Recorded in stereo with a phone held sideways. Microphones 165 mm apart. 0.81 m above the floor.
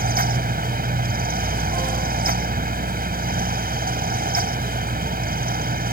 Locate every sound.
0.0 s a fan: 70° right (ahead or behind)